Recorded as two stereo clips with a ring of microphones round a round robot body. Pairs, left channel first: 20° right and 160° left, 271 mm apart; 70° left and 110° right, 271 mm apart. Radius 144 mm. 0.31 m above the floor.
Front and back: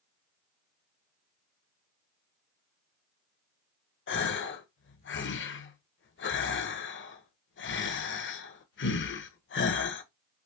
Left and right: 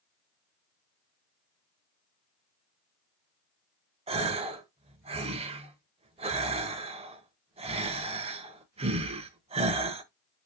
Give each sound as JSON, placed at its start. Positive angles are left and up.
{"t": 4.1, "sound": "a gasp", "azimuth_deg": -50, "distance_m": 0.9}